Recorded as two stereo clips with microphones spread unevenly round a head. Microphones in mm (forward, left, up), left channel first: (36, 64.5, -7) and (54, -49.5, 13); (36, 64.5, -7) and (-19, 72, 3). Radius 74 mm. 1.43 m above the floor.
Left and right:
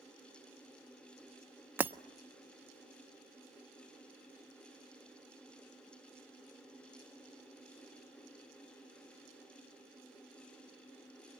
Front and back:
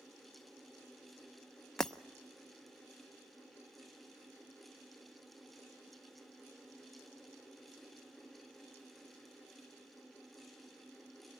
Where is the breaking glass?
105° right, 0.5 m.